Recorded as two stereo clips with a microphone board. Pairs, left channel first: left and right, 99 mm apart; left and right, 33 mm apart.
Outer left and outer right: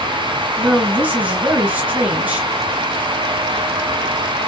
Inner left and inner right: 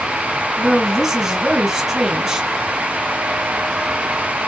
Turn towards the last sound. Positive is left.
turn(degrees=-15)  # may be behind; listen again after turning